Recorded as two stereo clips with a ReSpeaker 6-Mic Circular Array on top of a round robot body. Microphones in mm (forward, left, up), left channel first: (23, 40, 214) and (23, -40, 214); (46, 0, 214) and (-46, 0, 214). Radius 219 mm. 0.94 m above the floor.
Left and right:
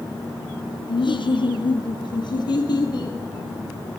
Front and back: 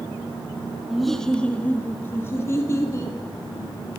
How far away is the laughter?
About 1.2 m.